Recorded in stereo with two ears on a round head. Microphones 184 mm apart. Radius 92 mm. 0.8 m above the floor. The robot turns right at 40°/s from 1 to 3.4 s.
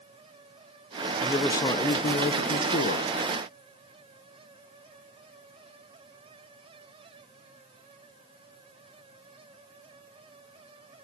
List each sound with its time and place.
1.2 s a man speaking: 10° left, 0.5 m; by 3.1 s 85° left, 0.5 m